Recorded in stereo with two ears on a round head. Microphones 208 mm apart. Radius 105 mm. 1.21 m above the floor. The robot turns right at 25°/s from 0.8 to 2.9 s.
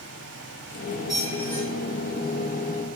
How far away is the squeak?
About 0.7 m.